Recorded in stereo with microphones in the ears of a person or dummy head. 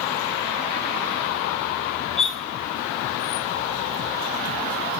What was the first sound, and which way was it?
Cutlery clinking, centre (ahead or behind).